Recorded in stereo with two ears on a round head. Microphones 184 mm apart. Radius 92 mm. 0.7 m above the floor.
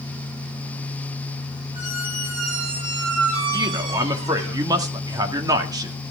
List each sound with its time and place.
1.7 s a squeak: 70° right (ahead or behind), 9 m
3.5 s a man speaking: 20° right (ahead or behind), 1.7 m